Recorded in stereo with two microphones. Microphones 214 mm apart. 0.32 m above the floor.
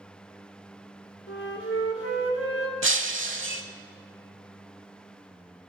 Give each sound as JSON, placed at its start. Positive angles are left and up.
{"t": 1.3, "sound": "a flute", "side_deg": 75, "distance_m": 1.8}
{"t": 2.8, "sound": "breaking glass", "side_deg": -70, "distance_m": 0.8}